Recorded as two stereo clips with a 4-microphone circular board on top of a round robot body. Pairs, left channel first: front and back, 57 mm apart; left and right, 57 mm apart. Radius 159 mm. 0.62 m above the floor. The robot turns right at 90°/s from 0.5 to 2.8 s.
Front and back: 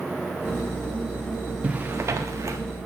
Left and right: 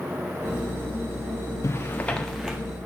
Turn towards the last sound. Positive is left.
turn(degrees=-140)